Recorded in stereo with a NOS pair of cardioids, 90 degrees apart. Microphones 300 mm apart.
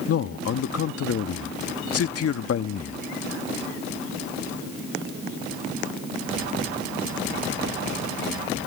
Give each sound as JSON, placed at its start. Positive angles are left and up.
{"t": 0.1, "sound": "a man speaking", "azimuth_deg": 55}